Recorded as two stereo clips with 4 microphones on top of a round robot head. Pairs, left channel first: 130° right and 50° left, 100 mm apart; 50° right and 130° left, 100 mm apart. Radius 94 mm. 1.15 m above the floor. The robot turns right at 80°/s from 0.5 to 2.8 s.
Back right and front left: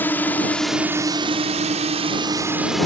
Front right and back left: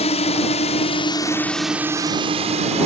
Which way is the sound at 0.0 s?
60° right.